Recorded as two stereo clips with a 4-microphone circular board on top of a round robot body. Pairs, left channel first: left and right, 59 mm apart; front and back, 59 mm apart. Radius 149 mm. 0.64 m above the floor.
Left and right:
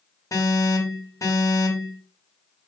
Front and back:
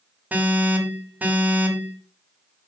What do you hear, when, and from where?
0.3 s an alarm: 120° left, 4.5 m